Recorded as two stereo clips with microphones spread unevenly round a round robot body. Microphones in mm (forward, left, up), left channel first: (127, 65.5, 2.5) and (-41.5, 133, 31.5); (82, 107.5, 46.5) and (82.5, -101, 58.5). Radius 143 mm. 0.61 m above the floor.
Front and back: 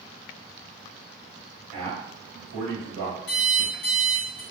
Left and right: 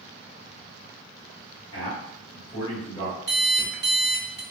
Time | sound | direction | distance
1.7 | a man speaking | 160° left | 1.5 m
3.3 | an alarm clock | 50° right | 0.8 m